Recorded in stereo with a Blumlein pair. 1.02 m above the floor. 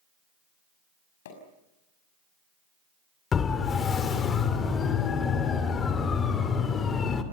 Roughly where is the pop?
Ahead left.